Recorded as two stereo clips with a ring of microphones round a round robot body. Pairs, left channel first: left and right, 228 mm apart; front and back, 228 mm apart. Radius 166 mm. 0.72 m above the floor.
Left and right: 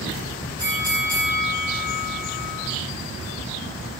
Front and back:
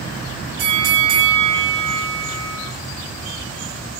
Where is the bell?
165° right, 9.5 m.